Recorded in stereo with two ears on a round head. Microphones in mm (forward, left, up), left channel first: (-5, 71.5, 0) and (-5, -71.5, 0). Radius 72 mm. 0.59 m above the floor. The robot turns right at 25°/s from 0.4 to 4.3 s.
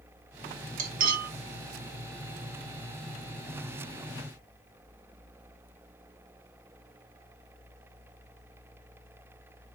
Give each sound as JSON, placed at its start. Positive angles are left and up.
{"t": 0.8, "sound": "cutlery clinking", "side_deg": -55, "distance_m": 0.7}